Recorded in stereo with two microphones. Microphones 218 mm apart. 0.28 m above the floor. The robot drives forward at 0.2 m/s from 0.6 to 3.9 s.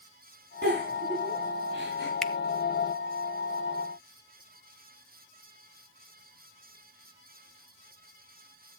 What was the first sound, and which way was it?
A giggle, 55° right (ahead or behind).